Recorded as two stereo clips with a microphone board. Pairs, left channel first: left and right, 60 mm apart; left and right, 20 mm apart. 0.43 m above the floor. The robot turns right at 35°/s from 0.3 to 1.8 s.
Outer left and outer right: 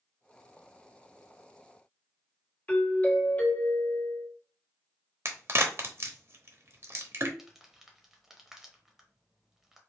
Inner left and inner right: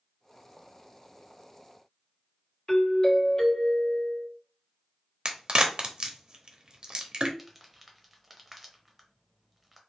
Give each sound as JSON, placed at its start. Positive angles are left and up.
{"t": 2.7, "sound": "a doorbell", "side_deg": 25, "distance_m": 1.6}
{"t": 5.2, "sound": "a crack", "side_deg": -45, "distance_m": 0.7}
{"t": 7.4, "sound": "crumpling", "side_deg": -5, "distance_m": 0.9}